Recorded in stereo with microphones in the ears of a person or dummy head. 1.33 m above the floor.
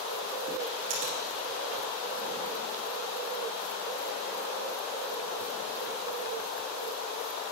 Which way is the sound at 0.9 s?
35° right (ahead or behind).